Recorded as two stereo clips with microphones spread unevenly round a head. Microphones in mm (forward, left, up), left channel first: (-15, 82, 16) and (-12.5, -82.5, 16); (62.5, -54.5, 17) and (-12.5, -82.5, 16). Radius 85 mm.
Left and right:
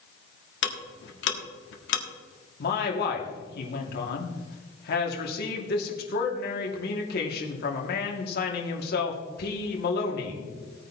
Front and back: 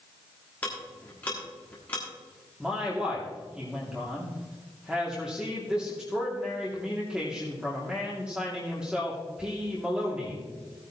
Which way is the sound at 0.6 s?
100° left.